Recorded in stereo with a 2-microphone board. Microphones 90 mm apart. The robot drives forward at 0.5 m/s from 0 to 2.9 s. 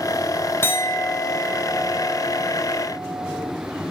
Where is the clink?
25° left (ahead or behind), 0.7 m; by 3.5 s 10° left (ahead or behind), 1.6 m.